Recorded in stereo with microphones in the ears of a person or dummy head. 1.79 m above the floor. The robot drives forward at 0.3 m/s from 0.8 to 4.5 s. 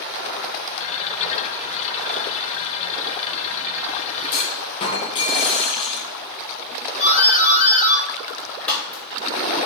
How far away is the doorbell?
About 3.5 m.